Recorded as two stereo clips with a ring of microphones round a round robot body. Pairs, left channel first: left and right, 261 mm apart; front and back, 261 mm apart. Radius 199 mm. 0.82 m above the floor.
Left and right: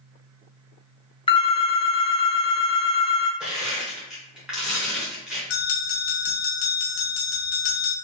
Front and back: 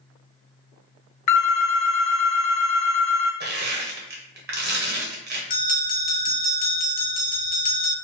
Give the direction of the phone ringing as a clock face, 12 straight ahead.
11 o'clock.